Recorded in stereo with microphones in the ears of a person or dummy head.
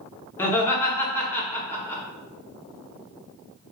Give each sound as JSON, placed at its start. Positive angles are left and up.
{"t": 0.4, "sound": "laughter", "side_deg": 15, "distance_m": 0.8}